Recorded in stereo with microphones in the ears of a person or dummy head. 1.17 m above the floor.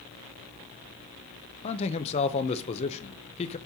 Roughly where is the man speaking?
Left.